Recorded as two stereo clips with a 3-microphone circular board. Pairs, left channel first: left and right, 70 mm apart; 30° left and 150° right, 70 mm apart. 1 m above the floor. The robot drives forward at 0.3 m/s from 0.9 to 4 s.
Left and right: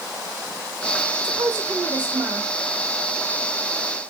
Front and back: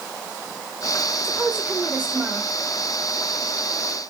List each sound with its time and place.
1.2 s a woman speaking: 70° right, 1.0 m; by 2.5 s 90° right, 1.0 m